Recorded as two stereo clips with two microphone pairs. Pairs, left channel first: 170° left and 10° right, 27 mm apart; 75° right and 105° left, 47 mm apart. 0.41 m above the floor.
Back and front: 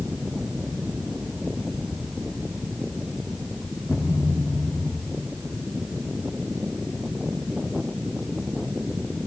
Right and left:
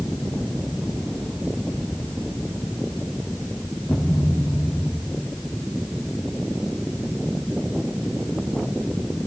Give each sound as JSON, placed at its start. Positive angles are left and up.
{"t": 3.9, "sound": "a thud", "azimuth_deg": -145, "distance_m": 4.0}